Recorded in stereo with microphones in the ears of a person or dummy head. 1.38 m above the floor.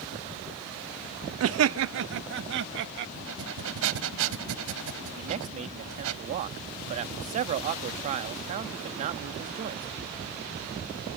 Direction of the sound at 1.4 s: 70° right (ahead or behind).